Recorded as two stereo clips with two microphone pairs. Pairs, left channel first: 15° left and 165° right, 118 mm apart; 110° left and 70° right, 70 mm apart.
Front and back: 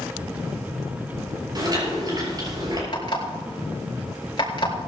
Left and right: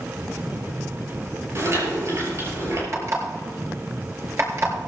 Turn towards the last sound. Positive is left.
turn(degrees=-25)